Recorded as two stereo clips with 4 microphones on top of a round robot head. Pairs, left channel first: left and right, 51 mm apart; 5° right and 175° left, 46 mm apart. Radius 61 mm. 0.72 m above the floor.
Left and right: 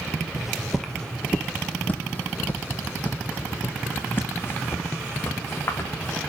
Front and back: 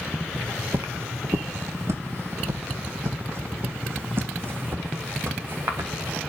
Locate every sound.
0.4 s footsteps: 160° right, 0.7 m; by 6.2 s 135° left, 3 m